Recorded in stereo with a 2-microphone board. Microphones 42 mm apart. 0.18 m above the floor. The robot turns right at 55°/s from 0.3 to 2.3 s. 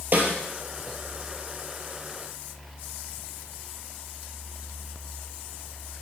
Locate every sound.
0.1 s a snare drum: 50° right (ahead or behind), 2.5 m; by 0.3 s 45° right (ahead or behind), 2.5 m